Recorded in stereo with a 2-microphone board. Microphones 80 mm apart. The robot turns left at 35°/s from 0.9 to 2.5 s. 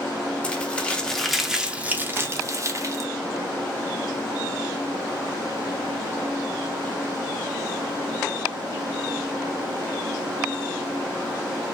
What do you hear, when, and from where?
0.4 s crumpling: 15° left, 0.7 m; by 3.1 s 40° right, 0.7 m